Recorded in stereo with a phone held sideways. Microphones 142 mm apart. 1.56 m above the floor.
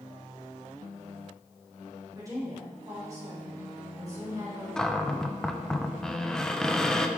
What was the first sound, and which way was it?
A woman speaking, 25° right (ahead or behind).